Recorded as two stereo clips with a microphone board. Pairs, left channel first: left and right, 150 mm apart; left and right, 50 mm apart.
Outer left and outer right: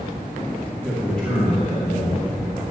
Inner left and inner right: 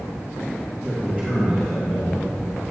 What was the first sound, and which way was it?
A man speaking, 5° left (ahead or behind).